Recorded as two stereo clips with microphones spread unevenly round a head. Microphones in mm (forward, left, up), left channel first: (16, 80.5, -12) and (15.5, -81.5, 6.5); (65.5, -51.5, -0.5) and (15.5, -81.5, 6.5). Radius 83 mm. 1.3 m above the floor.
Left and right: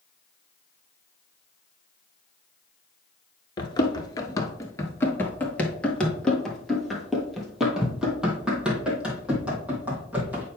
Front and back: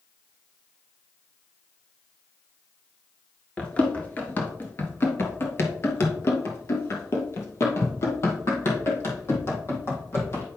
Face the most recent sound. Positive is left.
turn(degrees=-10)